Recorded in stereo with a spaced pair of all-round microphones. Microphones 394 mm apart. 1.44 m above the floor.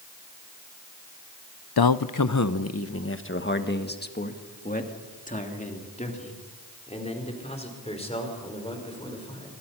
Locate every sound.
1.8 s a man speaking: 65° left (ahead or behind), 0.6 m; by 9.5 s 15° left (ahead or behind), 5.5 m